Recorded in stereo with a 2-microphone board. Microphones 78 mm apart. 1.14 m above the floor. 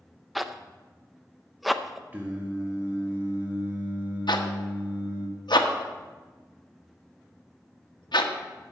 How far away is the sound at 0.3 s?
About 0.5 m.